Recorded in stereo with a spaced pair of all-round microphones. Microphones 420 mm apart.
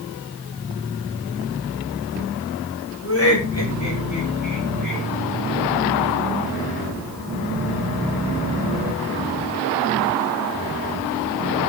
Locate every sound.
3.0 s laughter: 30° left (ahead or behind), 6 m; by 5.0 s 50° left (ahead or behind), 7.5 m